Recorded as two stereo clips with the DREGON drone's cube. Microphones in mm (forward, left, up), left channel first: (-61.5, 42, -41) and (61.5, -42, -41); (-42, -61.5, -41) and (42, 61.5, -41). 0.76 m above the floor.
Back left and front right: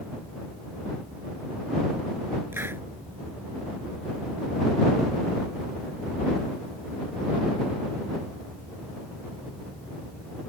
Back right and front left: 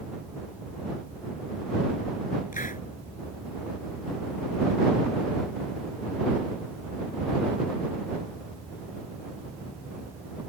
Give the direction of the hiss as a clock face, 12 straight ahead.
4 o'clock.